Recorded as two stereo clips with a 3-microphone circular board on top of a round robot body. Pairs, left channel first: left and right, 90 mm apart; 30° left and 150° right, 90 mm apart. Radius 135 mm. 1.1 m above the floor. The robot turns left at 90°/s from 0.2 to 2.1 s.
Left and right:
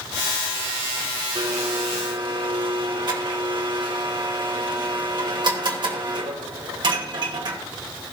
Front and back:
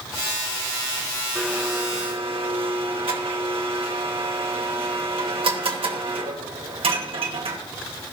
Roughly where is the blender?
Ahead right.